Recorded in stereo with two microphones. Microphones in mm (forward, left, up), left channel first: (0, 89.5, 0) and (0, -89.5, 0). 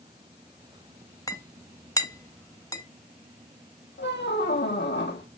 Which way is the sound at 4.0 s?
80° left.